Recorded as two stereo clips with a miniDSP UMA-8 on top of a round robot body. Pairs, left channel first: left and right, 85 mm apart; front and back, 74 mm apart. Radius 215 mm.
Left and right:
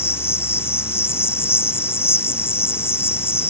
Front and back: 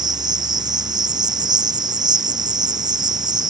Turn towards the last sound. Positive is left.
turn(degrees=155)